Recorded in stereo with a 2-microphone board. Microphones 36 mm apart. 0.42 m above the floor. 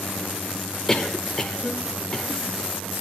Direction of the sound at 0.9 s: 15° left (ahead or behind).